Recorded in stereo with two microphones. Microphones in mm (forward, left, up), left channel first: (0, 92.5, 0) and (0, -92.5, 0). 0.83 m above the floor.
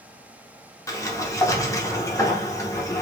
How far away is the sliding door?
About 0.8 m.